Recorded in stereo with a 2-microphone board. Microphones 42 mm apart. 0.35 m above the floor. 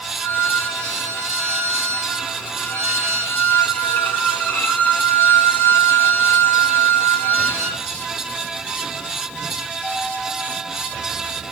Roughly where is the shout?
I don't hear a shout.